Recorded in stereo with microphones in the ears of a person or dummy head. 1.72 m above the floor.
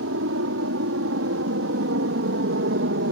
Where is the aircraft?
75° right (ahead or behind); by 3.1 s 55° right (ahead or behind).